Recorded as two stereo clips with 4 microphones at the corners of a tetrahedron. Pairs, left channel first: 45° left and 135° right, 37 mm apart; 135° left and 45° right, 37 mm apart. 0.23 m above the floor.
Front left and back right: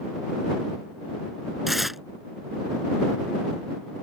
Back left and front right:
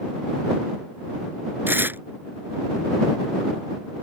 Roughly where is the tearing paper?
Ahead right.